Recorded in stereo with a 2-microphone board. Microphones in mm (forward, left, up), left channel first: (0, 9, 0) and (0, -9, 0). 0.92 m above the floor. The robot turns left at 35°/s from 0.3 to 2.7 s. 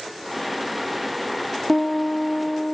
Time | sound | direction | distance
1.7 | a piano | 160° left | 1.4 m